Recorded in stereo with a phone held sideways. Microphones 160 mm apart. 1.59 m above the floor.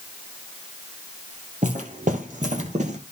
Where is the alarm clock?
I don't hear an alarm clock.